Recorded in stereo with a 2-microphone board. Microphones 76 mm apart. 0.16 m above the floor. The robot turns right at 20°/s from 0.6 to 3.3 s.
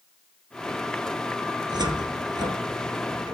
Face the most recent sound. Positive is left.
turn(degrees=-65)  # may be behind; listen again after turning